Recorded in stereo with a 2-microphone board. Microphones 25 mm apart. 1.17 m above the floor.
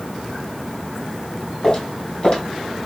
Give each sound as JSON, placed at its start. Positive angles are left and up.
{"t": 1.6, "sound": "footsteps", "side_deg": 40, "distance_m": 2.0}